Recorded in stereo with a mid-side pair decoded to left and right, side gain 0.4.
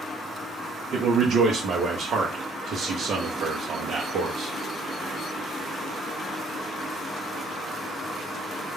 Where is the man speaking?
70° right, 0.6 m.